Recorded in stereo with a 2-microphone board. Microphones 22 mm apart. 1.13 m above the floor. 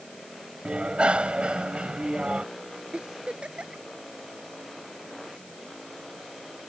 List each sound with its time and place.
0.7 s a bicycle bell: 55° right (ahead or behind)
2.9 s a giggle: 55° right (ahead or behind)